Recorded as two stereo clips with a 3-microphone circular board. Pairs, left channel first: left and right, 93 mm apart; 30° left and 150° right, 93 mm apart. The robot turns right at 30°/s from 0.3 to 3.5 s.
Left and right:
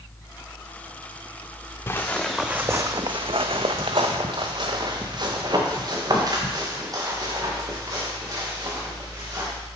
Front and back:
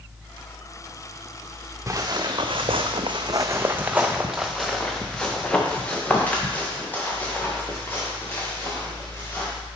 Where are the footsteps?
155° left, 0.8 m; by 9.5 s 35° right, 3.5 m.